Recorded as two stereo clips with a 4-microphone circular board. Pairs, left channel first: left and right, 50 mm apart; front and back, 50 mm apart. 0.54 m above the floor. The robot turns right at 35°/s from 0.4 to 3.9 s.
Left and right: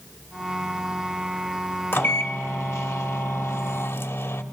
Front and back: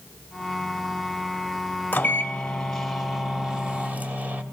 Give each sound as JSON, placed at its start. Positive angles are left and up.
{"t": 1.9, "sound": "a microwave", "azimuth_deg": 50, "distance_m": 1.4}